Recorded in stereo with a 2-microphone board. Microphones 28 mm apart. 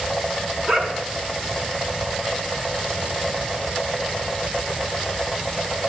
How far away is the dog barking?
About 2.5 m.